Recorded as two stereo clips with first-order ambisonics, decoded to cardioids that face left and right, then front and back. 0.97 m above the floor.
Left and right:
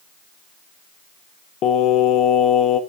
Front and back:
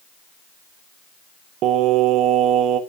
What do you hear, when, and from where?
1.6 s singing: 140° left, 1.3 m